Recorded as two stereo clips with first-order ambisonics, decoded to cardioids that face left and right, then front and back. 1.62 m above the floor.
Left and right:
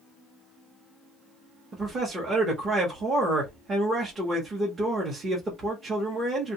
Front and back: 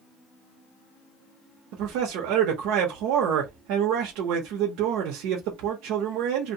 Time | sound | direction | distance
1.7 | a man speaking | 160° right | 0.7 m